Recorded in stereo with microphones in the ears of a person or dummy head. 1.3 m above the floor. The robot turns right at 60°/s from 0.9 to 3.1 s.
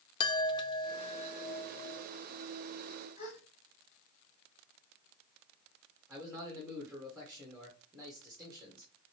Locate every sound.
0.2 s a chime: 30° left, 0.5 m; by 2.1 s 105° left, 0.5 m
3.2 s a gasp: 45° left (ahead or behind), 1.9 m
6.1 s a man speaking: centre (ahead or behind), 1.4 m